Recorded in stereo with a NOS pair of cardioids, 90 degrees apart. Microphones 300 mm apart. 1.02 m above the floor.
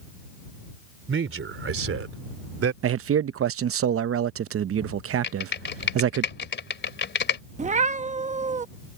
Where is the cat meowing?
25° right.